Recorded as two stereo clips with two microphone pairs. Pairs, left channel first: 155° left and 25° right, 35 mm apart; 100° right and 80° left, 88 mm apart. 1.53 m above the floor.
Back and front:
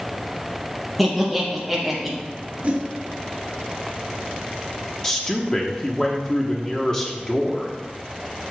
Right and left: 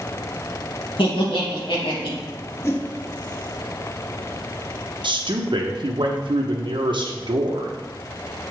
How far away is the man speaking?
About 0.9 m.